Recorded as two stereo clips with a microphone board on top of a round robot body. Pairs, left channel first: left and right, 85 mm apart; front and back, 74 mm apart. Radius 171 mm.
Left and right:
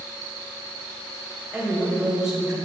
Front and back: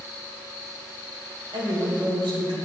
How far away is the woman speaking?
About 4 m.